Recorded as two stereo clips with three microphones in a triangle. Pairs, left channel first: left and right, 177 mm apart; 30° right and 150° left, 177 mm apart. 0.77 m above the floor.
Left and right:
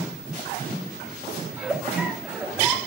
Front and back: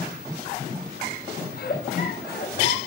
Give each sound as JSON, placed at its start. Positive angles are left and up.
{"t": 1.5, "sound": "a giggle", "azimuth_deg": -10, "distance_m": 1.2}